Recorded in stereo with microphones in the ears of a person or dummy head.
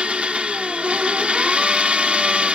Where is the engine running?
5° right (ahead or behind).